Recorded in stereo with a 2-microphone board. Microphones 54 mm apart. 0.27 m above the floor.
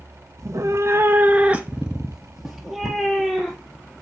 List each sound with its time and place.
0.4 s a cat meowing: 75° right (ahead or behind), 0.5 m; by 3.9 s 5° left (ahead or behind), 1.8 m